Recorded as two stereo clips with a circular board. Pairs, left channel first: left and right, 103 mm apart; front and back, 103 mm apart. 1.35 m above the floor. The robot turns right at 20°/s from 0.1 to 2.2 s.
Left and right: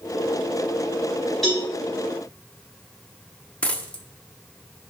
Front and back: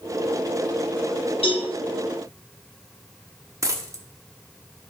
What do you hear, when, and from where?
1.4 s a cowbell: 5° left, 3.5 m; by 1.7 s 10° left, 3.5 m
3.6 s a dropped coin: 155° left, 1.0 m